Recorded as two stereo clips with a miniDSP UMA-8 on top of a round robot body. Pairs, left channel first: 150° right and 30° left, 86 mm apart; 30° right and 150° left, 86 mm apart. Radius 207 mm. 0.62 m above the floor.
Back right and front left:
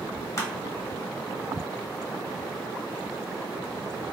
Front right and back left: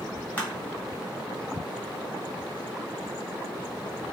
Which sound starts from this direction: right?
Crushing, at 0.4 s.